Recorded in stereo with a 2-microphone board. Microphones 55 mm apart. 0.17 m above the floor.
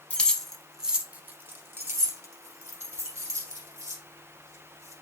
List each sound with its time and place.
0.1 s keys jangling: 25° left (ahead or behind), 0.8 m; by 4.9 s 75° right (ahead or behind), 3 m